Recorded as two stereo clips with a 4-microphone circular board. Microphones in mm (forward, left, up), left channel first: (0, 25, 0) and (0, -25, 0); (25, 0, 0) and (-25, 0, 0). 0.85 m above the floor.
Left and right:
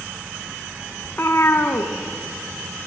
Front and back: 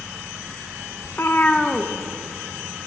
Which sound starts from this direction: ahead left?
A cat meowing, at 1.0 s.